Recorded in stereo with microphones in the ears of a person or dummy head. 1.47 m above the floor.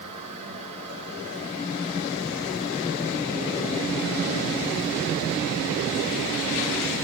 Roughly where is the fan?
Right.